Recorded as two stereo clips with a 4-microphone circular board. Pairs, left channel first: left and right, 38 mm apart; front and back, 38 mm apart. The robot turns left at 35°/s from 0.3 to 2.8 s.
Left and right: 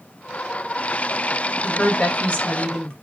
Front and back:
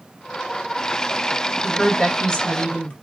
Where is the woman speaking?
80° left, 1.5 m; by 2.9 s 40° left, 1.5 m.